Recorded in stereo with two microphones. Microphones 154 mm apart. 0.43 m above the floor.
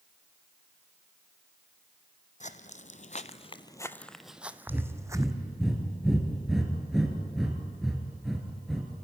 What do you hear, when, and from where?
2.4 s footsteps: 50° left (ahead or behind), 0.9 m; by 5.3 s 20° right (ahead or behind), 1.2 m
4.7 s breathing: 5° right (ahead or behind), 3 m